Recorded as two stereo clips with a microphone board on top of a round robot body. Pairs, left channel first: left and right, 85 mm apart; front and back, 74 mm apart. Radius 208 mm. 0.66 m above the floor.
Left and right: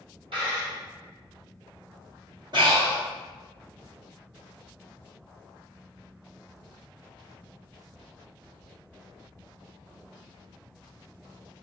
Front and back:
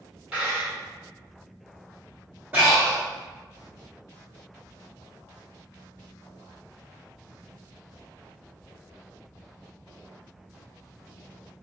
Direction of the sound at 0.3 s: 105° right.